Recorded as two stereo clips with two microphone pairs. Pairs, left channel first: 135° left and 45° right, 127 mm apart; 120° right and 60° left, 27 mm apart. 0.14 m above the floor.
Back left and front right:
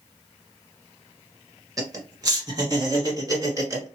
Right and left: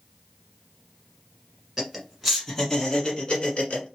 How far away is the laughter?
About 1.3 m.